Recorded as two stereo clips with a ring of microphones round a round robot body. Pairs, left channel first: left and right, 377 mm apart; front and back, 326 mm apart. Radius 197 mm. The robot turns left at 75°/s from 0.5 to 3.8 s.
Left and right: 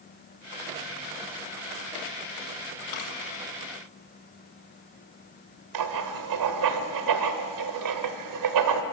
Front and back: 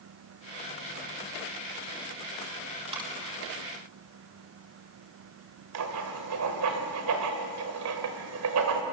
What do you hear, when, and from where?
2.9 s a dropped coin: 110° left, 5.5 m; by 3.1 s 95° left, 5.5 m
5.7 s writing: 130° right, 1.6 m